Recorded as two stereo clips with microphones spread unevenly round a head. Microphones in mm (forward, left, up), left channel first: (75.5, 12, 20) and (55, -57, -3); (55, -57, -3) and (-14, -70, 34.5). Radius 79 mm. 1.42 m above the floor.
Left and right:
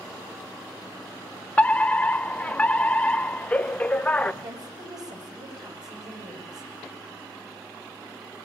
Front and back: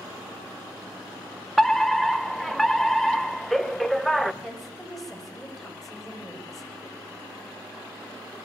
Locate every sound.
1.6 s a fire alarm: 10° right, 1.0 m
4.4 s a woman speaking: 80° right, 9.5 m